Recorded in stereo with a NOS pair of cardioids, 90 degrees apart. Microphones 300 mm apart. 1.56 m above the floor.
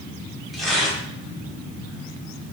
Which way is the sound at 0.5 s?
Straight ahead.